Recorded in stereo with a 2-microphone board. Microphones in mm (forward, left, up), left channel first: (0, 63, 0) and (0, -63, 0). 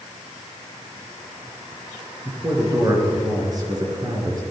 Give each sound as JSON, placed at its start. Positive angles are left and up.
{"t": 2.2, "sound": "a man speaking", "side_deg": -30, "distance_m": 3.0}